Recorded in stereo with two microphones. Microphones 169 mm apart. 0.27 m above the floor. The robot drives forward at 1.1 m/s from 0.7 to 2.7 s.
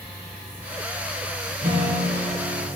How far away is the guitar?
About 7 m.